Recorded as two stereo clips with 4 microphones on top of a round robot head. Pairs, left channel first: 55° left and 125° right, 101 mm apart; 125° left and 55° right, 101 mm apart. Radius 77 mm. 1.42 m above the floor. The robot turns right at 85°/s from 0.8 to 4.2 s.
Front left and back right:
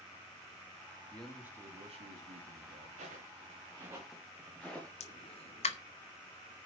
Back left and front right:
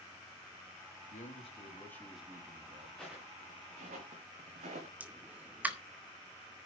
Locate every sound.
1.1 s a man speaking: 130° left, 2.5 m; by 2.9 s 80° right, 2.5 m
3.0 s footsteps: 150° right, 6.5 m; by 4.9 s 25° right, 4.5 m
5.0 s a pop: 25° left, 1.3 m